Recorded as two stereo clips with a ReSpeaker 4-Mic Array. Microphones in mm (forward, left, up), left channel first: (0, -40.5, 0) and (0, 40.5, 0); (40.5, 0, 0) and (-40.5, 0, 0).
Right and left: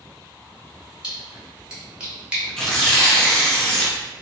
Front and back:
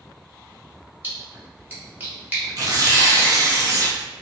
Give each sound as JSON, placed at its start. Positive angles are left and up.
{"t": 1.0, "sound": "a splash", "azimuth_deg": 150, "distance_m": 1.0}
{"t": 2.6, "sound": "tearing paper", "azimuth_deg": -165, "distance_m": 0.7}